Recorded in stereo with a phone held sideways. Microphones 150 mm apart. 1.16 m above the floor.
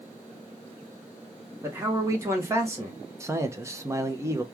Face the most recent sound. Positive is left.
turn(degrees=-20)  # may be behind; listen again after turning